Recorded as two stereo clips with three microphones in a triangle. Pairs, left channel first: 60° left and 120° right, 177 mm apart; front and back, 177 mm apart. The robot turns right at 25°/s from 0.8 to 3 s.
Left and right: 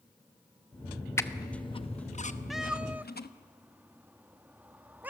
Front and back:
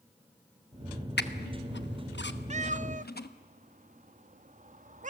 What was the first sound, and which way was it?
A squeak, 15° right.